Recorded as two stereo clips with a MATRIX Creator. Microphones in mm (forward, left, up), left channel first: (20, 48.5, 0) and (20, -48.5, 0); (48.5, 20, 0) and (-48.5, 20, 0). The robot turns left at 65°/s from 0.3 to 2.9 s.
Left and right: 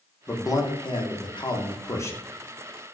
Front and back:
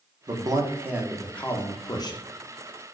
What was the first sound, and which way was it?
A man speaking, 145° left.